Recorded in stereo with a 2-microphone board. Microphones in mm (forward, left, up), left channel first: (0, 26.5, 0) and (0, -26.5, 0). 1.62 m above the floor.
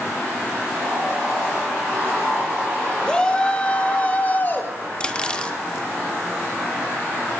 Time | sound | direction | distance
3.0 | a shout | 15° left (ahead or behind) | 4 m
5.0 | cutlery clinking | 20° left (ahead or behind) | 1.4 m